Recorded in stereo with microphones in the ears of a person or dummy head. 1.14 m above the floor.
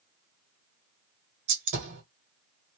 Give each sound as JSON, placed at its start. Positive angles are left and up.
{"t": 1.5, "sound": "a gunshot", "side_deg": -55, "distance_m": 1.3}